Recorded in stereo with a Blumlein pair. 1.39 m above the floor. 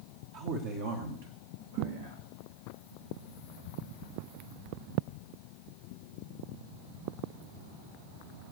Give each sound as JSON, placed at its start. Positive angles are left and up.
{"t": 0.3, "sound": "a man speaking", "azimuth_deg": -45, "distance_m": 1.3}
{"t": 1.8, "sound": "a thud", "azimuth_deg": -50, "distance_m": 7.5}